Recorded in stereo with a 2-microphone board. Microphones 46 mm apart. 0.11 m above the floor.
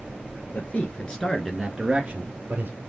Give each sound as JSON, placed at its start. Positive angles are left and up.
{"t": 0.5, "sound": "a man speaking", "side_deg": 40, "distance_m": 1.6}